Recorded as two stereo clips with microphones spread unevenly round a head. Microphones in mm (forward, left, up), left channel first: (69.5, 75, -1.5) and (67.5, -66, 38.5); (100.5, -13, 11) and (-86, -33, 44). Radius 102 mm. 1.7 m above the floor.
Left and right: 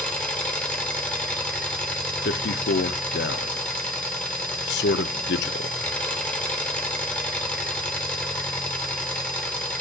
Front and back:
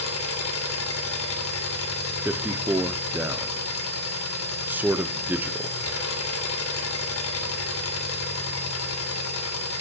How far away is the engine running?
About 3 m.